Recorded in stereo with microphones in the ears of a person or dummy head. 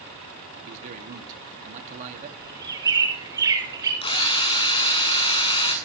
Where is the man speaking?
45° right (ahead or behind), 2.5 m.